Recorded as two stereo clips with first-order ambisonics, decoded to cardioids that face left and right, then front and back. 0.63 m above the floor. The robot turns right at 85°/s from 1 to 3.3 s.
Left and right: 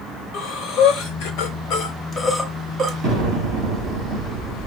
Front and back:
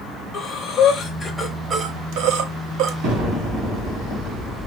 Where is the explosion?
130° right, 2.5 m; by 4.7 s 105° right, 2.5 m.